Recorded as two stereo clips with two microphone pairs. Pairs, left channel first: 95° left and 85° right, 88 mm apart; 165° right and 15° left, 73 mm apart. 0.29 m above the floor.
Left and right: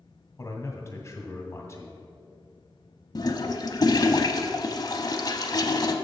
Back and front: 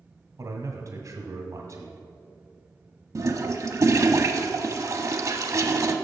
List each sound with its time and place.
0.4 s a man speaking: 45° left, 1.6 m
3.1 s a toilet flushing: 55° left, 0.7 m